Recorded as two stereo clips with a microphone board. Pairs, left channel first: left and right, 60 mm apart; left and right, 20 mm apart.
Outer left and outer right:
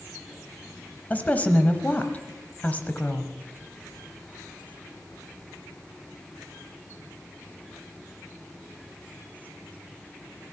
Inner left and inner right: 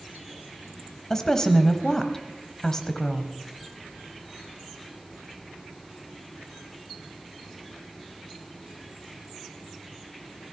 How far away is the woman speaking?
About 1.0 m.